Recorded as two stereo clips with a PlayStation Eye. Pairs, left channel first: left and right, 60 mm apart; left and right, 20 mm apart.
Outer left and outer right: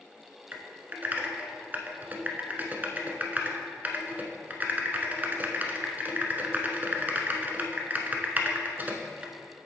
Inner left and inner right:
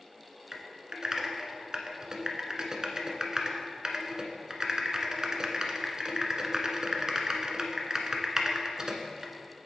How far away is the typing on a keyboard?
About 1.0 m.